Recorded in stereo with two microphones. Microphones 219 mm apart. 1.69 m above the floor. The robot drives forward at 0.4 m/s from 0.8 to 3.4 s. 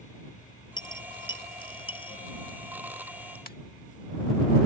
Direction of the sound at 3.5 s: 40° left (ahead or behind).